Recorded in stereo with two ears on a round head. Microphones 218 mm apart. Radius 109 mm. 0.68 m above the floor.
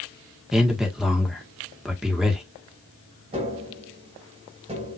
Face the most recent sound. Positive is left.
turn(degrees=-25)  # may be behind; listen again after turning